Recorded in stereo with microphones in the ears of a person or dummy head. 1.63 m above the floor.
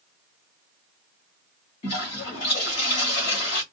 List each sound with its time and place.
1.8 s a toilet flushing: 30° left (ahead or behind), 1.7 m